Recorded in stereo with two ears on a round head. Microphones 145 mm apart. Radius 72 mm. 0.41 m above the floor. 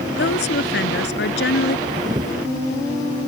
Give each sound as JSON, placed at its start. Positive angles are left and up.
{"t": 0.2, "sound": "a woman speaking", "side_deg": 75}
{"t": 1.9, "sound": "a camera shutter", "side_deg": -25}